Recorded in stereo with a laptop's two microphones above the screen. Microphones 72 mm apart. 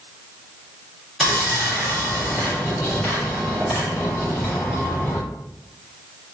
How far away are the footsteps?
No footsteps in this recording.